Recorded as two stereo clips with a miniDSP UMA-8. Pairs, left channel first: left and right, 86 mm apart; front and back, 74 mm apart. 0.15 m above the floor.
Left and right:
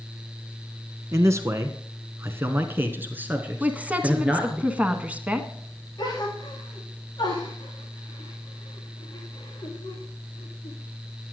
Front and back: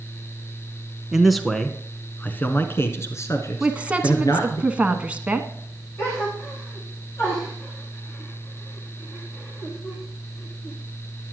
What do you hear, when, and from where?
1.1 s a man speaking: 100° right, 1.2 m; by 4.6 s 15° right, 2 m
3.6 s a woman speaking: 135° right, 1.2 m
6.0 s a gasp: 50° left, 4.5 m